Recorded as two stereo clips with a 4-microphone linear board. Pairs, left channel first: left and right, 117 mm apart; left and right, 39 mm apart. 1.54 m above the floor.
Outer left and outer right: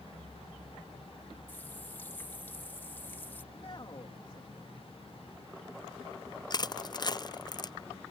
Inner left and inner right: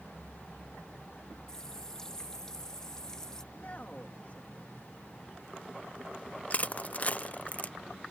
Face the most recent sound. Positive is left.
turn(degrees=35)  # may be behind; listen again after turning